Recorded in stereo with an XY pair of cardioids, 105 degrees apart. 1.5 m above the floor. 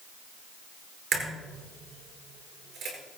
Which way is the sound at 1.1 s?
60° right.